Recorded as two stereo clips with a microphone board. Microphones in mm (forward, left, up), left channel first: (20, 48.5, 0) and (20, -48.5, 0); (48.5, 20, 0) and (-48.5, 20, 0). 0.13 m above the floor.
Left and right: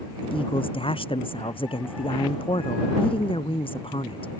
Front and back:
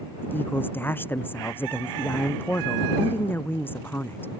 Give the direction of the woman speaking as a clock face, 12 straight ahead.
10 o'clock.